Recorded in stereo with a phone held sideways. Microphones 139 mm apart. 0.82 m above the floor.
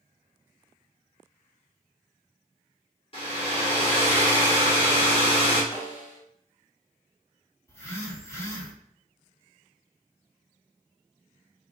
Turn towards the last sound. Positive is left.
turn(degrees=20)  # may be behind; listen again after turning